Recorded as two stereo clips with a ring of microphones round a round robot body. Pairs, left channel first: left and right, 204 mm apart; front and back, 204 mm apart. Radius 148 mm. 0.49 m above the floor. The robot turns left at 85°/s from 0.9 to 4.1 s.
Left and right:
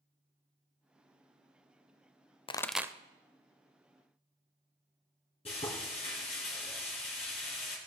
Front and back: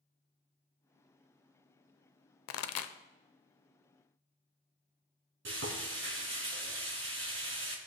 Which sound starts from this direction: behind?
Frying, at 5.5 s.